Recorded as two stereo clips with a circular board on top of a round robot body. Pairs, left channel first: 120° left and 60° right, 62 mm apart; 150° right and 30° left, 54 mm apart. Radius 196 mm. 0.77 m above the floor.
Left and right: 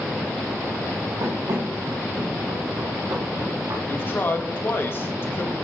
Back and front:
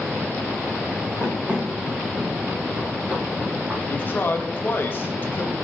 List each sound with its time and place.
1.2 s running footsteps: 45° right, 3 m; by 3.8 s 20° right, 4 m
3.9 s a man speaking: 165° left, 1.4 m